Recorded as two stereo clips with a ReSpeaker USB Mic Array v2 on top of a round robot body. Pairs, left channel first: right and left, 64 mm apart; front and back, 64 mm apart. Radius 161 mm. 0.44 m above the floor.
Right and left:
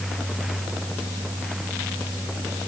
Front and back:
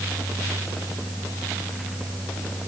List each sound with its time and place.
Only background noise.